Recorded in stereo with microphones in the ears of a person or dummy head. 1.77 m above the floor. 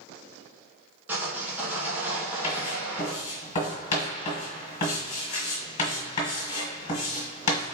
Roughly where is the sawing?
Centre.